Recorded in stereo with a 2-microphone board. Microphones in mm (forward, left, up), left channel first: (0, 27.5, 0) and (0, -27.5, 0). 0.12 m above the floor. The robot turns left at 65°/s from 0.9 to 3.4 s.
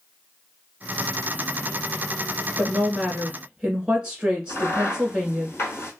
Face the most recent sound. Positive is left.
turn(degrees=45)  # may be behind; listen again after turning